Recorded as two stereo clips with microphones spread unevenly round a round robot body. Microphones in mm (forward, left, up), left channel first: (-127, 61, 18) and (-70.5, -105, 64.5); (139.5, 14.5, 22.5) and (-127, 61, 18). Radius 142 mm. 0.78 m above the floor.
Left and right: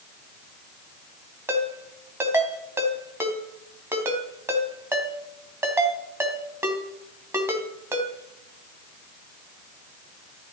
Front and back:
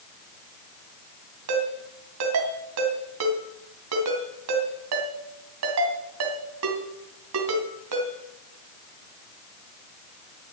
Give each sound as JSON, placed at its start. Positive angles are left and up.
{"t": 1.5, "sound": "a ringtone", "azimuth_deg": -145, "distance_m": 2.5}